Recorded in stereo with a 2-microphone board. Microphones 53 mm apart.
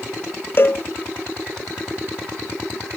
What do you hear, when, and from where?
0.6 s a cowbell: 45° left (ahead or behind)